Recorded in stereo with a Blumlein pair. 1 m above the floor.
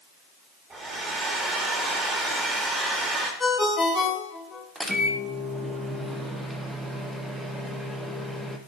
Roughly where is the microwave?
Ahead.